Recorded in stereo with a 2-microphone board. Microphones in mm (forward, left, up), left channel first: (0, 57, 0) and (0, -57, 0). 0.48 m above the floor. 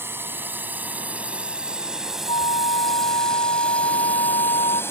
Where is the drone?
20° right (ahead or behind); by 4.9 s 20° left (ahead or behind).